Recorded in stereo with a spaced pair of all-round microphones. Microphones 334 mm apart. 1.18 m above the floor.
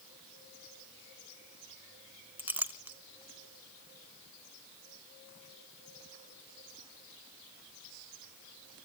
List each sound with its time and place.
2.4 s a clink: 5° right (ahead or behind), 0.6 m